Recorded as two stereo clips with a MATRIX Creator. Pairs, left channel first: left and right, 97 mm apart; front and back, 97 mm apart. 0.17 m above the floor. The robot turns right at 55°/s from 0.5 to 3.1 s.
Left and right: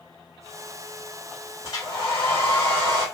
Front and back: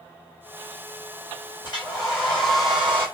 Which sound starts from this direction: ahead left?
A hair dryer, at 1.6 s.